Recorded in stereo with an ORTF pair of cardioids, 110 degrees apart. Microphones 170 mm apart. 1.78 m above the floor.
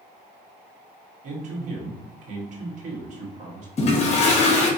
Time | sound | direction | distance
1.2 | a man speaking | 50° right | 1.7 m
3.8 | a toilet flushing | 40° left | 1.2 m